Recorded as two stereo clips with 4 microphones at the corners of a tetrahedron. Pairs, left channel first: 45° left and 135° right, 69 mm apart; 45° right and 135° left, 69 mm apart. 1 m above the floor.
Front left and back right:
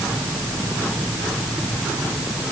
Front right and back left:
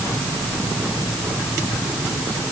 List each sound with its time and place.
Only background noise.